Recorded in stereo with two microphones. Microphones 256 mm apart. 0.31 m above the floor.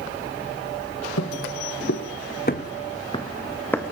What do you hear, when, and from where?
1.2 s footsteps: 75° left (ahead or behind), 2 m; by 3.9 s 5° left (ahead or behind), 2.5 m